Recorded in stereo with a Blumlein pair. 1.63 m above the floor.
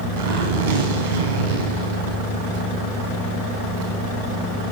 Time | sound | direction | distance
0.2 | a zipper | 55° right | 4 m